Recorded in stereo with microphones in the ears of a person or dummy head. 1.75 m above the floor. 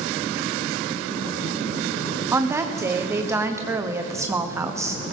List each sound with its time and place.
2.3 s a woman speaking: 25° right (ahead or behind), 0.9 m